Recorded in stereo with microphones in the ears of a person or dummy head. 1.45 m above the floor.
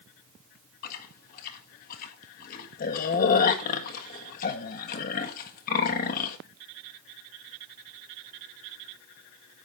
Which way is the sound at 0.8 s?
50° left (ahead or behind).